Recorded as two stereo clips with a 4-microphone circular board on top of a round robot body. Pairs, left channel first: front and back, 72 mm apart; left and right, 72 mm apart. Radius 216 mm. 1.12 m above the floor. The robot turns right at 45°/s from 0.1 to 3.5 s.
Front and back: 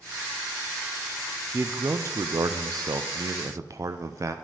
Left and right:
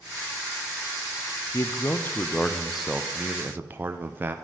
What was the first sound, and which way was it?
A man speaking, 125° left.